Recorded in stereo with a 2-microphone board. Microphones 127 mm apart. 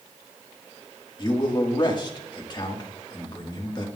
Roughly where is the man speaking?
Left.